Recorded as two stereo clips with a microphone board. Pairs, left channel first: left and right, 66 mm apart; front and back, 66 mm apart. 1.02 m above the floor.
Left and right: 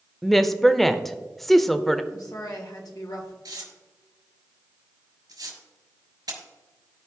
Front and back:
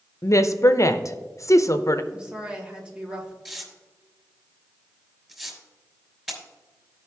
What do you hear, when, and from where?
0.2 s a woman speaking: 5° left, 0.7 m
2.1 s a woman speaking: 105° left, 2 m
3.5 s tearing paper: 95° right, 3 m